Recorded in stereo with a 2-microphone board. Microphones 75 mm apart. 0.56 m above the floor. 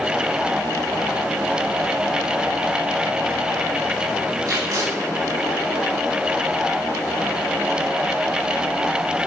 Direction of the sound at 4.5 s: 50° right (ahead or behind).